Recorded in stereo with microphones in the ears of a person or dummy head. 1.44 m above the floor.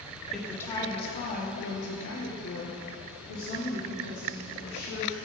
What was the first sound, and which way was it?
A woman speaking, 5° left (ahead or behind).